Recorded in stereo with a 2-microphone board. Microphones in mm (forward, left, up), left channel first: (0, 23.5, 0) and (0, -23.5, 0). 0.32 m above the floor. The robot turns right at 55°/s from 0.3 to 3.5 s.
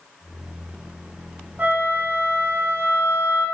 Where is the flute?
140° right, 1.5 m; by 3.5 s 40° right, 1.5 m.